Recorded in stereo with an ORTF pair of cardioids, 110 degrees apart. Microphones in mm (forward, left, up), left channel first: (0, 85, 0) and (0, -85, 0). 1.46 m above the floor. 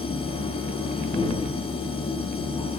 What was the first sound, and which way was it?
A machine running, 35° left.